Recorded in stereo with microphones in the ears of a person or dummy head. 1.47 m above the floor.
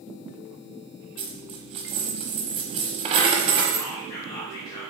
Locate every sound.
1.2 s a dropped coin: 30° right (ahead or behind), 1.0 m
3.8 s whispering: 30° left (ahead or behind), 2 m